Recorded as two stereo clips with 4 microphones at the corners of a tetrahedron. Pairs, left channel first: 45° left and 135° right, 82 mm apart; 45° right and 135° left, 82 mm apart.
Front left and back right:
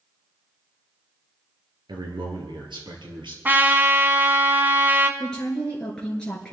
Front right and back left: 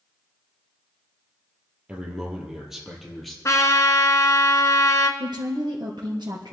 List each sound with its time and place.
1.9 s a man speaking: 150° right, 3 m; by 3.4 s 135° right, 4 m
3.5 s a trumpet: 75° right, 1.5 m
5.2 s a woman speaking: 125° left, 3.5 m